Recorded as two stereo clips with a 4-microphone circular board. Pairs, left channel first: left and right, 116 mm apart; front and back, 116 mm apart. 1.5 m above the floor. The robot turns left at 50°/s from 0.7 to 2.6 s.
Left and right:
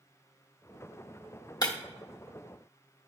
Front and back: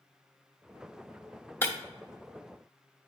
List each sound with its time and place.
1.6 s breaking glass: 60° left, 1.0 m; by 1.8 s 55° left, 1.0 m